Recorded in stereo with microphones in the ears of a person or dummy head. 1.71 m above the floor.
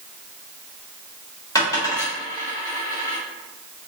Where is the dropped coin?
15° left (ahead or behind), 1.9 m.